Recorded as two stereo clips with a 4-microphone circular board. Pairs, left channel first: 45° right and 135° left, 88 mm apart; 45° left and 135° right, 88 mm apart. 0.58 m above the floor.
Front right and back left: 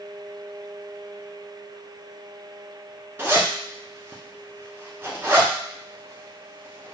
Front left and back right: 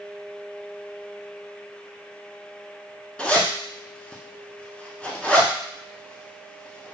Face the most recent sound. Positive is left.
turn(degrees=110)